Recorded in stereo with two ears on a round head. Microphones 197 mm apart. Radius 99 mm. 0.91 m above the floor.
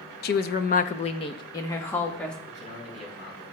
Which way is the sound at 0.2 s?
45° left (ahead or behind).